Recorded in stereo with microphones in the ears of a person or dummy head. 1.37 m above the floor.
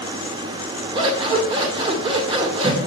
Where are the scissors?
30° right (ahead or behind), 1.9 m.